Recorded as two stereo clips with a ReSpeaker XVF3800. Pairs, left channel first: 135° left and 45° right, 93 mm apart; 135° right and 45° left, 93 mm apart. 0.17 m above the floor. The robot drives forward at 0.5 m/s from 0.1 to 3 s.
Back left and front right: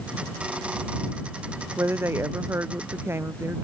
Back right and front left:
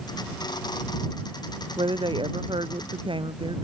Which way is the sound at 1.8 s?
20° left.